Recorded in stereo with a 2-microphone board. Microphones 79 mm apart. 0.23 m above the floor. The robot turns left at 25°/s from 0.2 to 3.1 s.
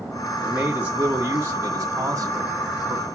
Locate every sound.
0.4 s a man speaking: 20° right, 1.9 m; by 3.0 s 85° right, 1.9 m